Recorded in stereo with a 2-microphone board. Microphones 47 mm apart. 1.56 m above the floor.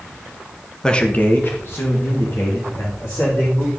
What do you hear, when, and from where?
0.8 s a man speaking: 15° left (ahead or behind), 0.9 m; by 3.7 s 75° left (ahead or behind), 4 m